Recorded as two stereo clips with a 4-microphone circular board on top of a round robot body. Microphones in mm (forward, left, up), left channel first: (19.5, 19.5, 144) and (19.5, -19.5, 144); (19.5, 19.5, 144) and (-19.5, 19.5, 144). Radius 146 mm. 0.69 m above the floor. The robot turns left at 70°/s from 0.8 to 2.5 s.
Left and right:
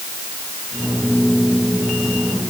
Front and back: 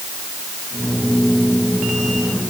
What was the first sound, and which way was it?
Only background noise.